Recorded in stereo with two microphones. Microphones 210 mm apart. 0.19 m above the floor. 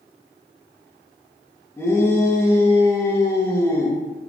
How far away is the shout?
About 2.5 m.